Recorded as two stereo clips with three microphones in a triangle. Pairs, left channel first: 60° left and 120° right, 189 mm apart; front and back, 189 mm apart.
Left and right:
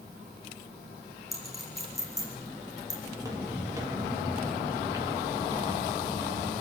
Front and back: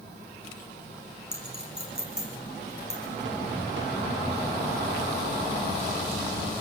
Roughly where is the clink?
Behind left.